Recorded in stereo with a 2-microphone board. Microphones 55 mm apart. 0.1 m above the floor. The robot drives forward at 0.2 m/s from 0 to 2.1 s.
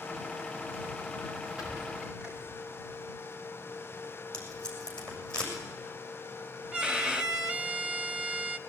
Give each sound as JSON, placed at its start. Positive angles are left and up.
{"t": 1.6, "sound": "a squeak", "side_deg": -20, "distance_m": 10.0}
{"t": 4.3, "sound": "tape being pulled", "side_deg": 15, "distance_m": 7.0}
{"t": 6.7, "sound": "a violin", "side_deg": -15, "distance_m": 0.7}